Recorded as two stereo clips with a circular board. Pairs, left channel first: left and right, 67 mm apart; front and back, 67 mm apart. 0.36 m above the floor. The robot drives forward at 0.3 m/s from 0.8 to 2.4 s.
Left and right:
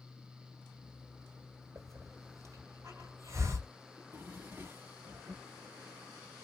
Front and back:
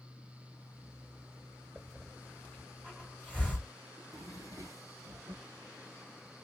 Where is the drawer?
150° right, 1.5 m.